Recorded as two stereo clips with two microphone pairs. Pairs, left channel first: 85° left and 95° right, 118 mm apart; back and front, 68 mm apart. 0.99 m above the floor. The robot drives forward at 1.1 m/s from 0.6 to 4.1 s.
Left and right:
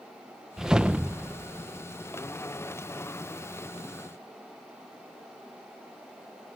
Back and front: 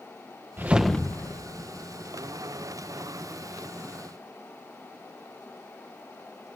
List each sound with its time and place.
0.6 s a whoosh: 20° right; by 1.9 s 175° right